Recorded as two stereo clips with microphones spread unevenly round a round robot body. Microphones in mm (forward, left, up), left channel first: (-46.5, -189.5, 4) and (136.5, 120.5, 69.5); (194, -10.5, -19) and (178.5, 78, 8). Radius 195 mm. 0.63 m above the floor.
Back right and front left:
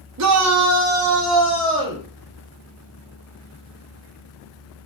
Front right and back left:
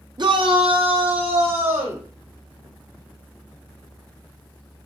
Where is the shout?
80° left, 1.1 m; by 2.0 s 125° left, 2.5 m.